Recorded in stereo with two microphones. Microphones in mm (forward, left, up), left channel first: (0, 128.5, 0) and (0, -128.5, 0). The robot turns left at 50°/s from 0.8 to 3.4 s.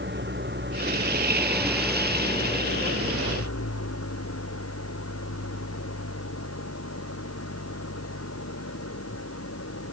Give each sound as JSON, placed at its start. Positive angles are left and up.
{"t": 0.0, "sound": "an engine running", "azimuth_deg": -130}